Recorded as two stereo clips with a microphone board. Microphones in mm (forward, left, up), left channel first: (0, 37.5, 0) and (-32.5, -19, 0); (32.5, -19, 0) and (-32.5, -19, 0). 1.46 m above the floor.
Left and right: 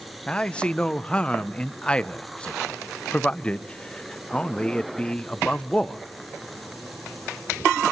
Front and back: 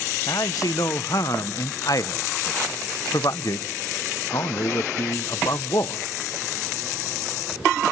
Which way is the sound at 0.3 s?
10° right.